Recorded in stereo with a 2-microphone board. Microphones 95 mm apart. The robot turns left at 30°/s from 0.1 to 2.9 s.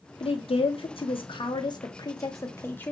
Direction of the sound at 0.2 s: 65° left (ahead or behind).